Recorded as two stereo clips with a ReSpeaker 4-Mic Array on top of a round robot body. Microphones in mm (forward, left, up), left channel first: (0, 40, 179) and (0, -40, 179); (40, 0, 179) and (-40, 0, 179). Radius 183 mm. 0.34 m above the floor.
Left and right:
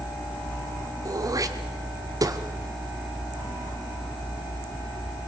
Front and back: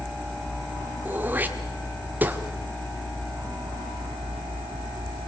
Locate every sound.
1.1 s throat clearing: 120° right, 1.7 m